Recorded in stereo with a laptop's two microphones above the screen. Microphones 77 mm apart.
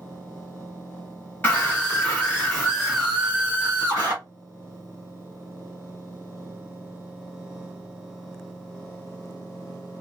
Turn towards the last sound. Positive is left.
turn(degrees=-40)  # may be behind; listen again after turning